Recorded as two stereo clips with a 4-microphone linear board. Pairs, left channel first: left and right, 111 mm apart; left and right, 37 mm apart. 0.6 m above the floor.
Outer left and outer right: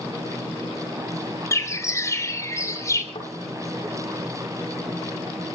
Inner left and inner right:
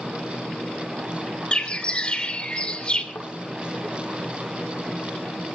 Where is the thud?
50° left (ahead or behind), 8.5 m.